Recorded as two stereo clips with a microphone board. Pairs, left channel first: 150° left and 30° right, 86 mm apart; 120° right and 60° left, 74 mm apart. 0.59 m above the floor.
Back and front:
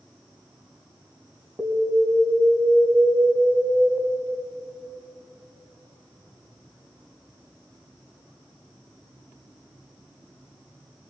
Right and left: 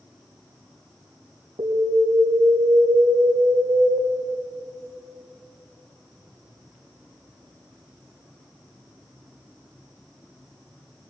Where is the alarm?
65° left, 4 m.